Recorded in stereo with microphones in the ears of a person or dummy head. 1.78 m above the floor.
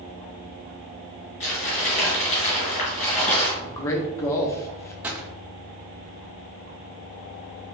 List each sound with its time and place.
1.4 s crumpling: 40° left (ahead or behind), 2 m
3.6 s a man speaking: 15° left (ahead or behind), 0.7 m
5.0 s a gunshot: 10° right (ahead or behind), 0.7 m